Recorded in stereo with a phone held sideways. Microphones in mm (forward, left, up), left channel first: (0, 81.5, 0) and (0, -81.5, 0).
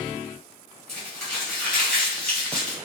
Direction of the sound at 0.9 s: Centre (ahead or behind).